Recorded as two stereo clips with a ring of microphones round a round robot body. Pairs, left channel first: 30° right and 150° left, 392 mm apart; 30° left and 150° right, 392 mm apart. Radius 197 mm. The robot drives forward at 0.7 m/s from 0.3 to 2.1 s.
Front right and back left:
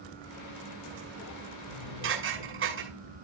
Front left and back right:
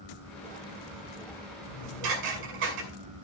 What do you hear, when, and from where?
1.6 s dishes clattering: 150° right, 7 m